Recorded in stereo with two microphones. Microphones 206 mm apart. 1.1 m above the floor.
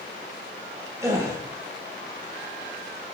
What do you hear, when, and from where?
1.0 s a gasp: 15° right (ahead or behind), 2.5 m